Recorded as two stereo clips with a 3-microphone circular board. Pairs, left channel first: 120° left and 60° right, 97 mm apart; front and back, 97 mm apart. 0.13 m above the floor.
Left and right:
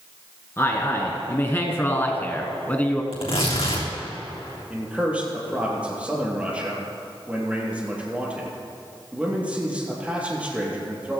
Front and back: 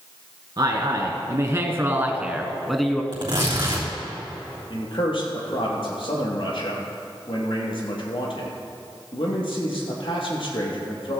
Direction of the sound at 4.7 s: 15° left.